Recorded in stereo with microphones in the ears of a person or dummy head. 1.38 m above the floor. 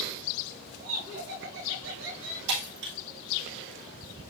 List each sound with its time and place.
0.8 s laughter: 90° right, 5.5 m; by 2.4 s 85° right, 4.5 m
2.5 s breaking glass: 70° right (ahead or behind), 4.5 m